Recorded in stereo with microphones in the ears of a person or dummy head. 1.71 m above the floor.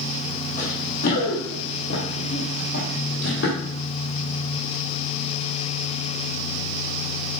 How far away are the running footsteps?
About 3.5 m.